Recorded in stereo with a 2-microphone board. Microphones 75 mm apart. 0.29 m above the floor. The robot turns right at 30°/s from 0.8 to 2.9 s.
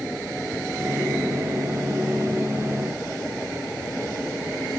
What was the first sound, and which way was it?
Only background noise.